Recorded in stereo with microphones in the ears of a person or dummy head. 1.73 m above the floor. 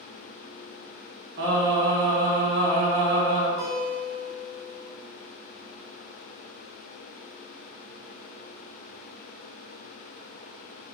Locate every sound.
1.4 s singing: 55° right (ahead or behind), 1.9 m
3.6 s a guitar: 40° left (ahead or behind), 1.2 m